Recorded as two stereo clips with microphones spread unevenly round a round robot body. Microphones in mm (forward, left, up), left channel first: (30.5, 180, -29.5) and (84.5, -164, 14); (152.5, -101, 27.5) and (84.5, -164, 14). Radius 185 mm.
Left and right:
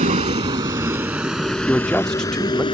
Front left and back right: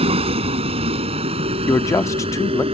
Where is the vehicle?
150° right; by 2.8 s 175° left.